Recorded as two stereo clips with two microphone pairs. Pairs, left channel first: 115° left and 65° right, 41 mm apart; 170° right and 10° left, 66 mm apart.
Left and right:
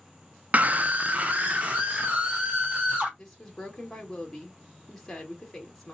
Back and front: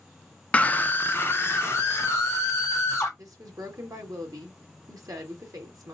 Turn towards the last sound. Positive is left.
turn(degrees=35)